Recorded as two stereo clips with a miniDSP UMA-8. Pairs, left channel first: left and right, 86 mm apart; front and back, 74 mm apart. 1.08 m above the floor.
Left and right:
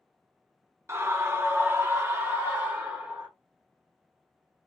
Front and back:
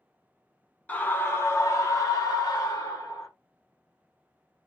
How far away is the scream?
About 0.7 m.